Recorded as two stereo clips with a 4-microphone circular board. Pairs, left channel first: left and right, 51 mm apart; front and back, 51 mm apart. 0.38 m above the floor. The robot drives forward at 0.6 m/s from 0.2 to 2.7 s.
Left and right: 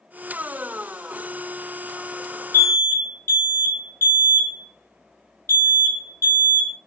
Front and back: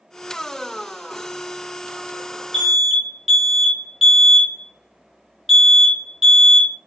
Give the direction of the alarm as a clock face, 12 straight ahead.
9 o'clock.